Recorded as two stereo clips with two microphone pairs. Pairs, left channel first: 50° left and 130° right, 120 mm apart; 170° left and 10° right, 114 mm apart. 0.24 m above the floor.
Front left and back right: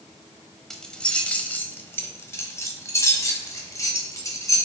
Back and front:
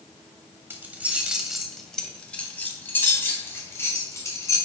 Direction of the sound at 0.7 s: 25° right.